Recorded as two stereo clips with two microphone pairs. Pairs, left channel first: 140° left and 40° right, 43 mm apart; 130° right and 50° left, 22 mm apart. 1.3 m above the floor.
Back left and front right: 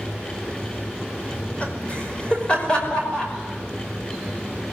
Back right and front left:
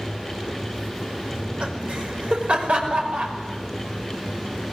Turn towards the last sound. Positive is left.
turn(degrees=70)